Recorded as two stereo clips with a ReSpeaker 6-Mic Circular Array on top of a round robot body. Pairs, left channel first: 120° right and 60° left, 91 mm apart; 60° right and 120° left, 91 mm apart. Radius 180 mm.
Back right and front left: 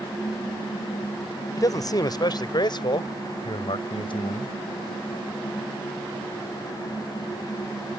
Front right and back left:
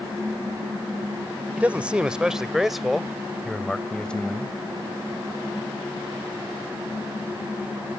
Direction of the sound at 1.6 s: 165° right.